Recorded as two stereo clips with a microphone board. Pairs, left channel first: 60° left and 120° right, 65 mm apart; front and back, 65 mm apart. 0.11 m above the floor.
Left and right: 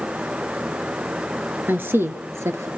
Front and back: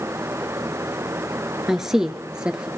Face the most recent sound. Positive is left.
turn(degrees=-110)